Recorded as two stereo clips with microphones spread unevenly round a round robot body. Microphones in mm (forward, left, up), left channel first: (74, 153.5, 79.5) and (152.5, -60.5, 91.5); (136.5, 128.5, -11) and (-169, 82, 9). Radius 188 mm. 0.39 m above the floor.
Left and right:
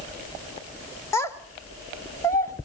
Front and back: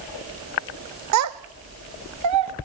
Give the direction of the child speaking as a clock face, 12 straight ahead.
6 o'clock.